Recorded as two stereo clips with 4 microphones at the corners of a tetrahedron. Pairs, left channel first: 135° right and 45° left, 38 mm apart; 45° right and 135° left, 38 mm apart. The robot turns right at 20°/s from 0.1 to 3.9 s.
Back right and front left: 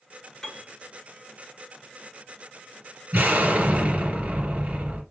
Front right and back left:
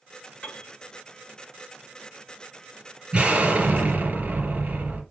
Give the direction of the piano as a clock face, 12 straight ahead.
2 o'clock.